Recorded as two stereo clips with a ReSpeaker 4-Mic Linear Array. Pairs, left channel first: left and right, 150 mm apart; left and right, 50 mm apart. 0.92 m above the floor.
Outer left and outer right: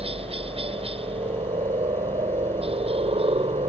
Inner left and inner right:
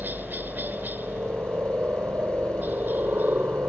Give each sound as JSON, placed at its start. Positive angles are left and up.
{"t": 0.0, "sound": "a helicopter", "side_deg": -40}